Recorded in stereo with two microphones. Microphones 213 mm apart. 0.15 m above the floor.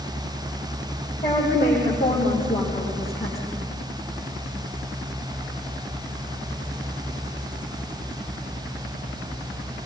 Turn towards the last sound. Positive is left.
turn(degrees=55)  # may be behind; listen again after turning